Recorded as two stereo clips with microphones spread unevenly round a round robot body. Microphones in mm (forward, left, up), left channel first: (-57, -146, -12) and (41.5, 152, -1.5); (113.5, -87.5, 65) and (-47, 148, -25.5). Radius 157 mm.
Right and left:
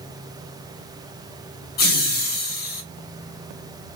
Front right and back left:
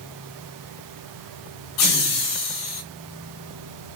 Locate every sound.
1.8 s laughter: 60° right, 0.8 m